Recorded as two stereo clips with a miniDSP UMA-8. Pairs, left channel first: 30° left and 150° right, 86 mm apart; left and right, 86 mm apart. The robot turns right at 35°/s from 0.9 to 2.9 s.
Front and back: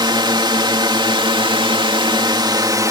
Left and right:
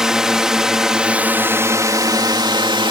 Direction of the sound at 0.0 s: 175° right.